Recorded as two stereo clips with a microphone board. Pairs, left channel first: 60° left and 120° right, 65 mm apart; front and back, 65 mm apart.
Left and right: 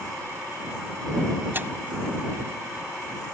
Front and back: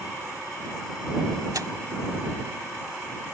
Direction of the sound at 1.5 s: 175° right.